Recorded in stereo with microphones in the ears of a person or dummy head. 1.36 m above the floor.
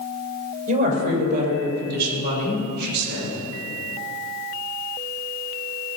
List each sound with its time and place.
0.7 s a woman speaking: 45° right (ahead or behind), 4.5 m; by 3.3 s 65° right (ahead or behind), 7 m